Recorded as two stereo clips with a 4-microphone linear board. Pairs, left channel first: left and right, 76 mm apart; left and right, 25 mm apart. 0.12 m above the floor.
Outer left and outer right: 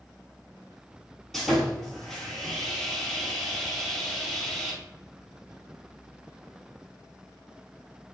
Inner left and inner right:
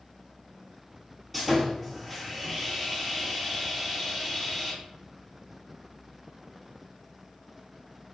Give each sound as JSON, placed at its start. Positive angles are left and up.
{"t": 1.3, "sound": "sawing", "side_deg": 0, "distance_m": 1.1}